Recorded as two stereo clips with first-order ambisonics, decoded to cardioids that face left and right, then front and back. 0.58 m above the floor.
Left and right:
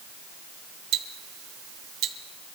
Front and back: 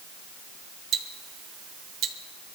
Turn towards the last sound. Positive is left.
turn(degrees=-130)